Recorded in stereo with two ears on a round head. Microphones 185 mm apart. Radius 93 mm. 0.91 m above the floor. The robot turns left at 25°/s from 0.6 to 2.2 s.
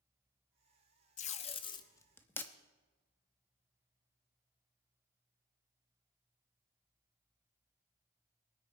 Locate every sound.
1.2 s tape being pulled: 35° left (ahead or behind), 0.7 m; by 2.5 s 10° left (ahead or behind), 0.7 m